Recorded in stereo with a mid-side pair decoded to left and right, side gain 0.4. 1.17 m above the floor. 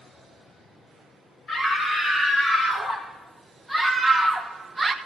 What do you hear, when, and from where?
1.5 s a scream: 30° left, 6 m; by 5.0 s 25° right, 1.3 m